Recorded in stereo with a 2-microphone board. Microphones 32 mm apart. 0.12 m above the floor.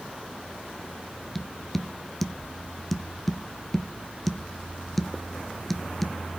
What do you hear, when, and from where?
1.4 s tapping: 5° left (ahead or behind), 0.6 m